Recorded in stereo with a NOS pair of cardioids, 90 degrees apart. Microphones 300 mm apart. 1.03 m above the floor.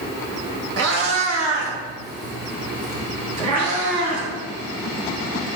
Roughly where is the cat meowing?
Ahead right.